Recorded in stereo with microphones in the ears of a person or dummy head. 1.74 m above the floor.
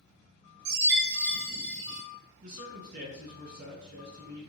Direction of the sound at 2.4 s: 50° right (ahead or behind).